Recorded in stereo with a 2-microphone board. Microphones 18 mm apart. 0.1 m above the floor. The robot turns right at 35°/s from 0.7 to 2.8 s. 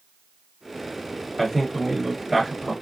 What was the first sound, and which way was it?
A man speaking, 175° left.